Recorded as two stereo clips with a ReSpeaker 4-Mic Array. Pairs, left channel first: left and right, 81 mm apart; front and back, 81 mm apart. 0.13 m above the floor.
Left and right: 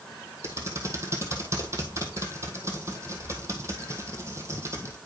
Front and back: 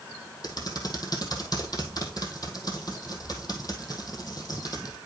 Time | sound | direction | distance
0.4 | typing on a keyboard | 35° right | 1.6 m